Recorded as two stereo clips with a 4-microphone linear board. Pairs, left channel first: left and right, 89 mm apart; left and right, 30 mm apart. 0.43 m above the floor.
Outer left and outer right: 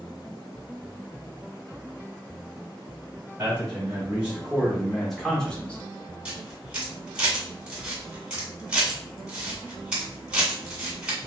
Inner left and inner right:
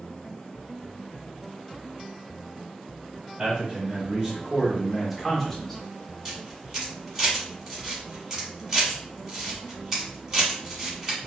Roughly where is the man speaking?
Right.